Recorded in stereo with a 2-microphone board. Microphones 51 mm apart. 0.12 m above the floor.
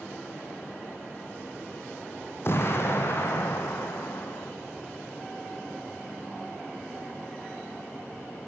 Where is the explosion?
50° left (ahead or behind), 4 m.